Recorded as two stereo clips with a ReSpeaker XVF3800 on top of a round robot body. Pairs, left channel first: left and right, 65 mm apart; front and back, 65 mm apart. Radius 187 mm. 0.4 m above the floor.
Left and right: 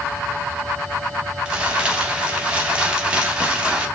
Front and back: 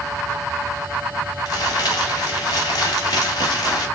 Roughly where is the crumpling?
Ahead.